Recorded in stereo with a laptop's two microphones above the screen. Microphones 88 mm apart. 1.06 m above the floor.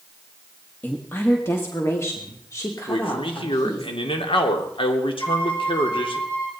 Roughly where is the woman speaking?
Left.